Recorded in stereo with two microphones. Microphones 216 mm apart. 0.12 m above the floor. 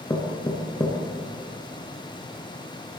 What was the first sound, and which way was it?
Knocking, 20° left (ahead or behind).